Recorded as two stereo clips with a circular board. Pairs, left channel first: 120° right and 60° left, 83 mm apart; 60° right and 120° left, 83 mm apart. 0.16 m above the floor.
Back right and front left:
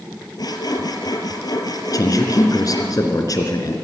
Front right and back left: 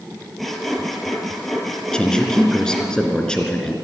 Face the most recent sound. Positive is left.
turn(degrees=-140)